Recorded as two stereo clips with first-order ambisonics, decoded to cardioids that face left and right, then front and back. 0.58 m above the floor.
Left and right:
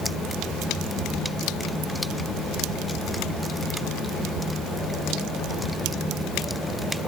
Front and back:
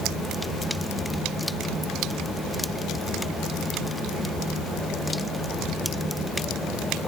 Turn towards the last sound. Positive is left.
No sound to turn to.